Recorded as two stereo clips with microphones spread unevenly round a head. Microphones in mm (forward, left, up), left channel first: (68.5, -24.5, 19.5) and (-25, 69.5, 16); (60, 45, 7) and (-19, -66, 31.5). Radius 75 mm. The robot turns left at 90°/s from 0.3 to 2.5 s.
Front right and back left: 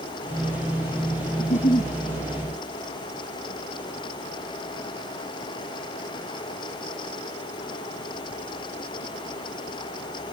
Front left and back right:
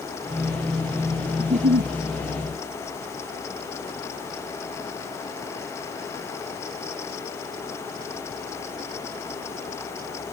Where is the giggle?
75° right; by 1.9 s 125° right.